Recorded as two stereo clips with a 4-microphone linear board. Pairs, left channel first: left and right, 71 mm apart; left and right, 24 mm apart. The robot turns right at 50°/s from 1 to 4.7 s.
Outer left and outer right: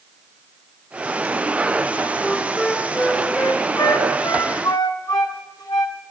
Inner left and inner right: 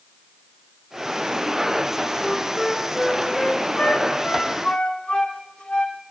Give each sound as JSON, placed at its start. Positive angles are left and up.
{"t": 2.2, "sound": "a flute", "side_deg": -10, "distance_m": 1.0}